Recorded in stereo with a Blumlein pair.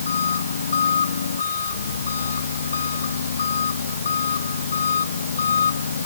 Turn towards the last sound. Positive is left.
turn(degrees=70)